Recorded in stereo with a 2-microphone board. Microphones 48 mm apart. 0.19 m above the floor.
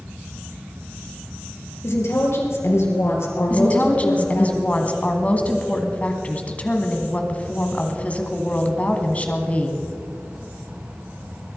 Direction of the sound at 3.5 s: 30° left (ahead or behind).